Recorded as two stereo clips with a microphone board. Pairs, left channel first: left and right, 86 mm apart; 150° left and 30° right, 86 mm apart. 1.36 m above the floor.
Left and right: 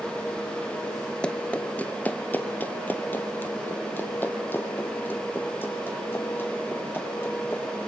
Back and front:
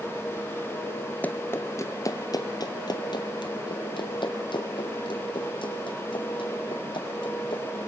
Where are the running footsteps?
145° left, 1.3 m; by 7.8 s 155° left, 6 m.